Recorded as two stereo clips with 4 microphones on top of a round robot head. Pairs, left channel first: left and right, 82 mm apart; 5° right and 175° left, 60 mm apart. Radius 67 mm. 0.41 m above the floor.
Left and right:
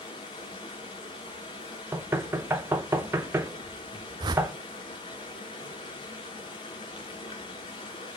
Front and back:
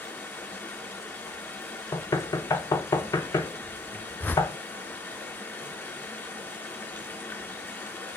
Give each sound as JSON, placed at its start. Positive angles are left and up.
{"t": 0.0, "sound": "running water", "azimuth_deg": 50, "distance_m": 3.5}
{"t": 1.9, "sound": "knocking", "azimuth_deg": -30, "distance_m": 1.5}
{"t": 4.2, "sound": "a whoosh", "azimuth_deg": -65, "distance_m": 0.8}